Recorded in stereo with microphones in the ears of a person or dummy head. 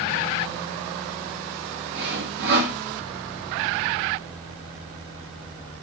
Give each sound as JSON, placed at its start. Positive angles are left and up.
{"t": 1.9, "sound": "sawing", "side_deg": -60, "distance_m": 2.0}